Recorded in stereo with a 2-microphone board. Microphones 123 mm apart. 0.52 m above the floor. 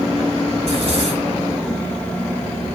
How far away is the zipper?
About 6 m.